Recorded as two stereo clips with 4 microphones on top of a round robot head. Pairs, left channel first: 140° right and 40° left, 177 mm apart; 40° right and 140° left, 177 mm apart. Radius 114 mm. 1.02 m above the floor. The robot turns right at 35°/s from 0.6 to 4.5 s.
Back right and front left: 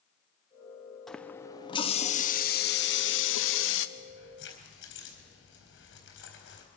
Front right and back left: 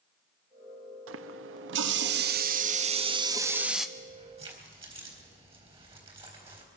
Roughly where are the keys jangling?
Behind.